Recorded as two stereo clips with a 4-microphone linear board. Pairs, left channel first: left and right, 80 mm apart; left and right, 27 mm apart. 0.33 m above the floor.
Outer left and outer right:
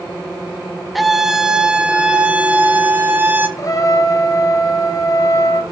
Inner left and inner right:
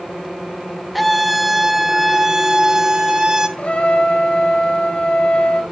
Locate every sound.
0.9 s a scream: centre (ahead or behind), 1.0 m; by 3.5 s 25° right (ahead or behind), 1.9 m
3.6 s a trumpet: 45° left (ahead or behind), 1.5 m